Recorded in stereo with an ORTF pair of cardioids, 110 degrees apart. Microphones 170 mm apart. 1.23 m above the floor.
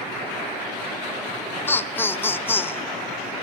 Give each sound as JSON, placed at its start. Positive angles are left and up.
{"t": 1.7, "sound": "laughter", "azimuth_deg": 15, "distance_m": 0.6}